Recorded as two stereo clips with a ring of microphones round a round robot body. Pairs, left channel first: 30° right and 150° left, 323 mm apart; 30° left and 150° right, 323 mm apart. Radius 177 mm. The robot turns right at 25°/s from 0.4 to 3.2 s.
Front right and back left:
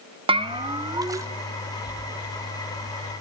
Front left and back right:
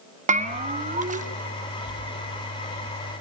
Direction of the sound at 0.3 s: 165° right.